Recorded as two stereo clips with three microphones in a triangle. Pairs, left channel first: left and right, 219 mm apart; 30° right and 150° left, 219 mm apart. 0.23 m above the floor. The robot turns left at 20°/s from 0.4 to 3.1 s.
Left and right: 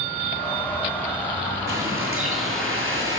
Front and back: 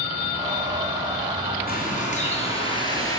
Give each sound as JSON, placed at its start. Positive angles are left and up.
{"t": 1.7, "sound": "a bird", "azimuth_deg": -75, "distance_m": 5.0}